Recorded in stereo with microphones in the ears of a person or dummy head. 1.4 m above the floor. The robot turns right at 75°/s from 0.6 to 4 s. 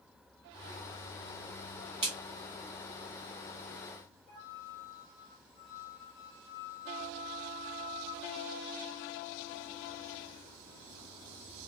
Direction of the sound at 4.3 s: 65° left (ahead or behind).